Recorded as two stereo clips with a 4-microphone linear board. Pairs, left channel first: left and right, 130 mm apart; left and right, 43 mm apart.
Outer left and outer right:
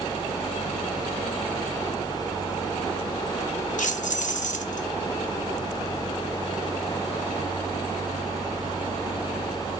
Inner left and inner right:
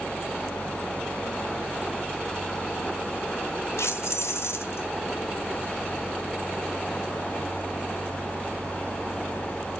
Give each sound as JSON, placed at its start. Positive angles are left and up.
{"t": 3.8, "sound": "keys jangling", "side_deg": 75, "distance_m": 1.1}